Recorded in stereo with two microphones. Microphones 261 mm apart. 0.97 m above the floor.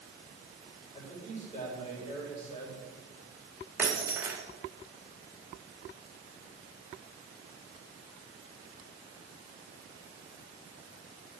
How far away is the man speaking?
About 4.5 m.